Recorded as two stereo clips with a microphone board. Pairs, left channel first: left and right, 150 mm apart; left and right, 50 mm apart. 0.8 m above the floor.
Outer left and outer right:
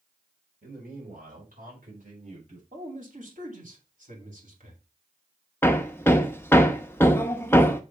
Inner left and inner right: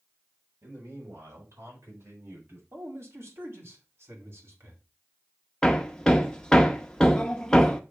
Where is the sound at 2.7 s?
60° right (ahead or behind), 2.5 m.